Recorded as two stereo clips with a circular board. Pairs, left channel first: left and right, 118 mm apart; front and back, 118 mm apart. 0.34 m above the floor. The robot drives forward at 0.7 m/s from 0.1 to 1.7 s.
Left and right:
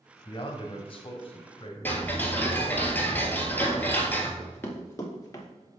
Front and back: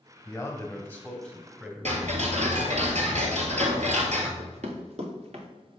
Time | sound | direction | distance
0.2 | a man speaking | 65° left | 1.8 m
1.9 | ticking | 165° left | 1.7 m
4.4 | running footsteps | 165° left | 2.5 m